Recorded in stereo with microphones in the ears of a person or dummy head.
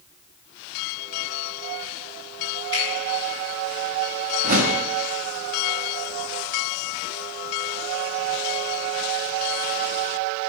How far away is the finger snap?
About 3.5 m.